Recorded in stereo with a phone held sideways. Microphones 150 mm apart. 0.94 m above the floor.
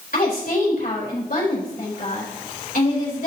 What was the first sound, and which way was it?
A woman speaking, 70° left (ahead or behind).